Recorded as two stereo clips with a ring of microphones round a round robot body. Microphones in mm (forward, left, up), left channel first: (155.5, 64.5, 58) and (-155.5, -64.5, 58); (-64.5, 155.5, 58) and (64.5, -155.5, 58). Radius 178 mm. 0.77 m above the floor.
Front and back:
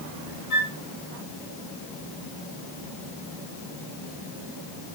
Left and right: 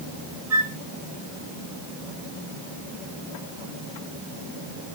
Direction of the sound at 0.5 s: 15° right.